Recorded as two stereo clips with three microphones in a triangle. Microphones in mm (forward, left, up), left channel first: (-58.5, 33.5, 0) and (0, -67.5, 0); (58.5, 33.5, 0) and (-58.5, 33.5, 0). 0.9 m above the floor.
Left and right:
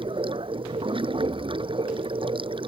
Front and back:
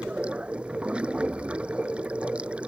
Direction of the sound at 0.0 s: 100° right.